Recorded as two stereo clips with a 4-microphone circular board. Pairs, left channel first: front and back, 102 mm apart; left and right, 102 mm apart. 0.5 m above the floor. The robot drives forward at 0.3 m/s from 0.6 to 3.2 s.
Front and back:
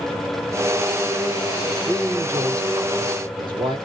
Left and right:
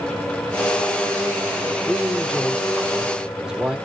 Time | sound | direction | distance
1.9 | a man speaking | 160° right | 0.7 m